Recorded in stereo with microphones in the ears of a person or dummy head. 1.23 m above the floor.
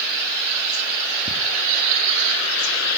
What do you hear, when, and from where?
1.3 s ticking: 35° right (ahead or behind), 2 m